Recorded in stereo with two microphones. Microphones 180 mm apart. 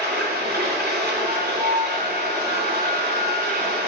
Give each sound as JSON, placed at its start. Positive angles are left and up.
{"t": 0.0, "sound": "running water", "side_deg": -65, "distance_m": 2.5}
{"t": 1.3, "sound": "a flute", "side_deg": -40, "distance_m": 0.7}